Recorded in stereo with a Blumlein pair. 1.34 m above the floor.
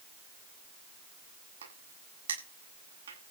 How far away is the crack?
About 8.5 m.